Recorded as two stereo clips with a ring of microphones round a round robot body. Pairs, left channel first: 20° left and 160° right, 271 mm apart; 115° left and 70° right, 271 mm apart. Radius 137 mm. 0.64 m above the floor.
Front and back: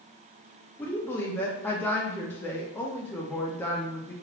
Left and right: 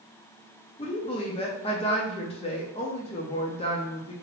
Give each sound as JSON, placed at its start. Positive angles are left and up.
{"t": 0.8, "sound": "a woman speaking", "azimuth_deg": 95, "distance_m": 0.5}